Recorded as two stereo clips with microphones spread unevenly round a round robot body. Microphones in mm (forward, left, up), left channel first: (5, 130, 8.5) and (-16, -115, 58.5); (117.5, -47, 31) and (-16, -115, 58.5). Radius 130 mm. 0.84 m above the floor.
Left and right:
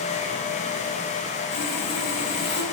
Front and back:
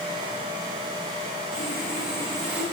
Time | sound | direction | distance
1.5 | sawing | 105° left | 3 m